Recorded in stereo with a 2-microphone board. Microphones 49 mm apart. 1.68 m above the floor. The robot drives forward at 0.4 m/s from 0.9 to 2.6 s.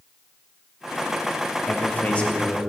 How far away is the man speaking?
About 0.8 m.